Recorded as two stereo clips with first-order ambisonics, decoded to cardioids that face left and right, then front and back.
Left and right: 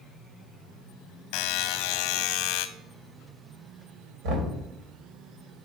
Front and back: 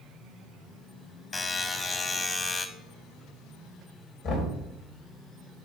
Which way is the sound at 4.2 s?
55° right.